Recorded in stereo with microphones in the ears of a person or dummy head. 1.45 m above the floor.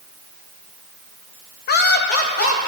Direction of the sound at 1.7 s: 50° left (ahead or behind).